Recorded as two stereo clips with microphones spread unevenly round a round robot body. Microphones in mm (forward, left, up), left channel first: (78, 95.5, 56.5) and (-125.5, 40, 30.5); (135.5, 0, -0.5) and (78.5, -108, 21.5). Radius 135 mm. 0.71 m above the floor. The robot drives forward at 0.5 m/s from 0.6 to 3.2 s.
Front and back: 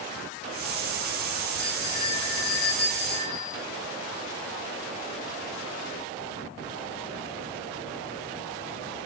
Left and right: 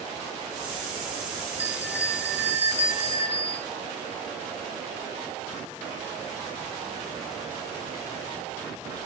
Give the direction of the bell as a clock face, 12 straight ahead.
1 o'clock.